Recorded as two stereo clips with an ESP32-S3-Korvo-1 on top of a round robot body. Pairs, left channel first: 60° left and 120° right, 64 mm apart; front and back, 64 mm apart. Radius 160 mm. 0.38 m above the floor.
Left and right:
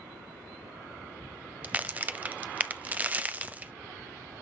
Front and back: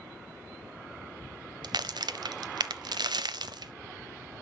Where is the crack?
170° left, 0.7 m.